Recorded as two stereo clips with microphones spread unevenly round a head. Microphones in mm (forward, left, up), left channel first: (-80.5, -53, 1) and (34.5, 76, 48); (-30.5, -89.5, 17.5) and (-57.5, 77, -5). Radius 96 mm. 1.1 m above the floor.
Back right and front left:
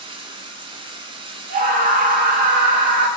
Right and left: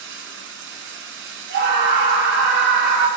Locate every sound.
0.0 s running water: 95° left, 1.9 m
1.5 s a scream: 95° left, 1.6 m